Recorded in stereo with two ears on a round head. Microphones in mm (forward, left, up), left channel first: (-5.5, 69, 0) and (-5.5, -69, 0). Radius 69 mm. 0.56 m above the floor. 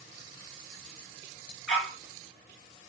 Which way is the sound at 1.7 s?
Centre (ahead or behind).